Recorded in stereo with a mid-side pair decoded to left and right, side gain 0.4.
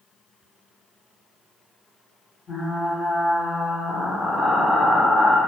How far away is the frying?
About 1.7 m.